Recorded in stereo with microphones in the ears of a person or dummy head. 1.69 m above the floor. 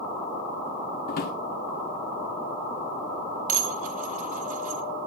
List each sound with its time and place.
1.1 s a drawer: 50° left (ahead or behind), 1.9 m
3.5 s dishes clattering: 50° right (ahead or behind), 1.8 m